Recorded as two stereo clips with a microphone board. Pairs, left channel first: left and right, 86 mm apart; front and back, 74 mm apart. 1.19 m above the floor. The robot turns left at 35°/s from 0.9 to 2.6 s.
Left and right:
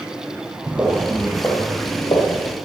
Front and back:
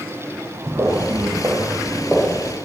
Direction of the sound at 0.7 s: 150° right.